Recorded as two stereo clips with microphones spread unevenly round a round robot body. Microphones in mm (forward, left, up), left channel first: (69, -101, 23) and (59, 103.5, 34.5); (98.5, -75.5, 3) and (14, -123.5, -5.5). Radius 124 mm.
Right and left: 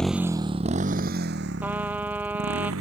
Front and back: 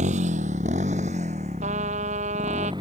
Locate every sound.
0.0 s a motorcycle: 175° right; by 2.8 s 135° left
1.6 s a trumpet: 175° left